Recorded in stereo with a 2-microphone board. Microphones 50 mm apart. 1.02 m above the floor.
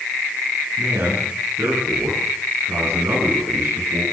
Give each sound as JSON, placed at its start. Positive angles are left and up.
{"t": 0.8, "sound": "a man speaking", "side_deg": -60, "distance_m": 10.0}